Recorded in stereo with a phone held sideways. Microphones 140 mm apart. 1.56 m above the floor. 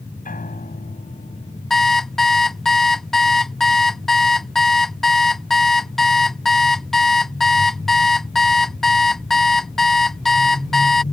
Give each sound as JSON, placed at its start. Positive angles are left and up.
{"t": 0.2, "sound": "a piano", "side_deg": 80}
{"t": 1.7, "sound": "an alarm clock", "side_deg": 5}